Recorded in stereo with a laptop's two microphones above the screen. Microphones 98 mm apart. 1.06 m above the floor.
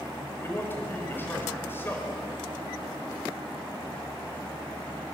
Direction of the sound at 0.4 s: 25° left (ahead or behind).